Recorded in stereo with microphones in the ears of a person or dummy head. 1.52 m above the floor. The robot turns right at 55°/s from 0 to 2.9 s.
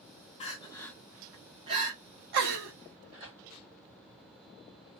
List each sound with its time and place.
0.4 s crying: 35° left (ahead or behind), 0.9 m; by 2.7 s 65° right (ahead or behind), 0.9 m
3.1 s tearing paper: 35° right (ahead or behind), 1.9 m